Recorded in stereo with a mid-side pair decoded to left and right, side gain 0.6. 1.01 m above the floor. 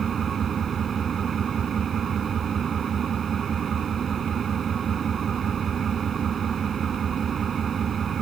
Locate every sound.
0.0 s an engine running: 35° right